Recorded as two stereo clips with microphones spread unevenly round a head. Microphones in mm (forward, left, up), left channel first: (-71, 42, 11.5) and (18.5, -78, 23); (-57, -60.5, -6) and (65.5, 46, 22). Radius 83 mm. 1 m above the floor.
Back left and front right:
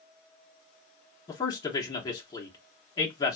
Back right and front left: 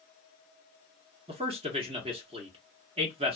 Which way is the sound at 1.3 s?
85° left.